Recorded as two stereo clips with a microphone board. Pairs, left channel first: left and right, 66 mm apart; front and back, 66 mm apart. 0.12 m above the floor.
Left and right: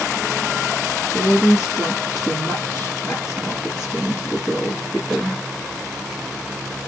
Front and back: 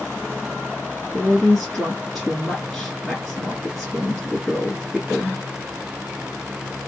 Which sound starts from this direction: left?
A woman speaking, at 1.1 s.